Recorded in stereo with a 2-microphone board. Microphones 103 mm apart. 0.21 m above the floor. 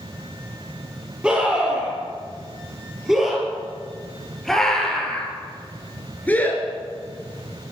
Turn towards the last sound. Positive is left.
turn(degrees=30)  # may be behind; listen again after turning